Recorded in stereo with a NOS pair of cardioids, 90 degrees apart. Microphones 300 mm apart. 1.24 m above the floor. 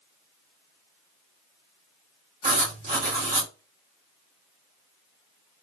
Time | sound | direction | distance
2.4 | writing | 25° right | 2 m